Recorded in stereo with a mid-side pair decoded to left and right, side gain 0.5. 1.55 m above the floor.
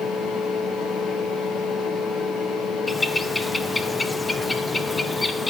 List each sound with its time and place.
0.0 s a fan: 60° left, 1.6 m
2.9 s a bird: 20° left, 0.9 m